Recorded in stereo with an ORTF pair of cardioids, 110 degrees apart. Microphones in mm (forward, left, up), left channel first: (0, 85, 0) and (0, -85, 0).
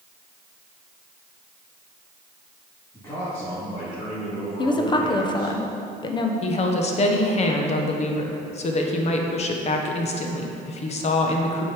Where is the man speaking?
15° left, 2.5 m; by 5.5 s 70° left, 4 m.